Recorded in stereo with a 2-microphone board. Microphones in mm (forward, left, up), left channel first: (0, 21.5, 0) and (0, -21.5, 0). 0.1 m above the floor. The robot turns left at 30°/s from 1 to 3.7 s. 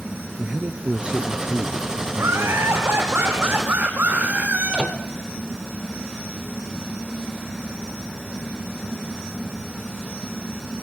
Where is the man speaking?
50° right, 2 m; by 2.8 s 105° right, 2 m.